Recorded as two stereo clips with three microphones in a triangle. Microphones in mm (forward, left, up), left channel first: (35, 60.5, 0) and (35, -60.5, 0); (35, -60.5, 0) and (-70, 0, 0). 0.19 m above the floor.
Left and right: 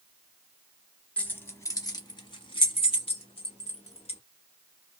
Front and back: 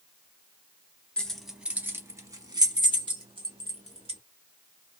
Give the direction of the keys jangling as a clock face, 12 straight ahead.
11 o'clock.